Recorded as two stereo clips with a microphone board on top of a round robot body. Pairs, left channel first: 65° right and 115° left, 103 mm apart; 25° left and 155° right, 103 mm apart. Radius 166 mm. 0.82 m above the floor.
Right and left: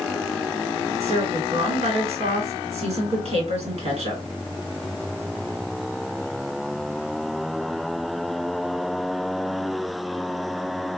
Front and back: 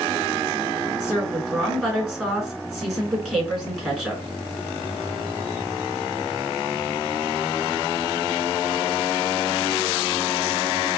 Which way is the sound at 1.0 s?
125° left.